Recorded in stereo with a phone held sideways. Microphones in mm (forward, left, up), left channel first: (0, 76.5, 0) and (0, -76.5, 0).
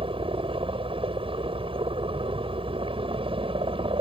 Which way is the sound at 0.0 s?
35° right (ahead or behind).